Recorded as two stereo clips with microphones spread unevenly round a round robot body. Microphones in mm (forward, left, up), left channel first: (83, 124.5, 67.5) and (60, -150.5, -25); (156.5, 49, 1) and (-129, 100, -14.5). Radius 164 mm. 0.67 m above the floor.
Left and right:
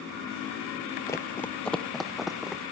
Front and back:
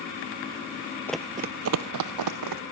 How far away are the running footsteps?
About 0.7 m.